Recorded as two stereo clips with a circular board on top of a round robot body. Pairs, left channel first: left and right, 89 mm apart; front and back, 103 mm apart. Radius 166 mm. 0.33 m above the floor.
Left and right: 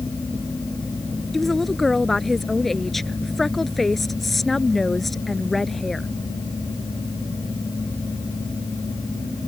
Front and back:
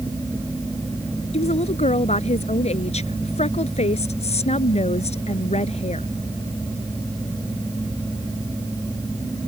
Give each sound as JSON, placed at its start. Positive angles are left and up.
{"t": 1.3, "sound": "a woman speaking", "azimuth_deg": 5}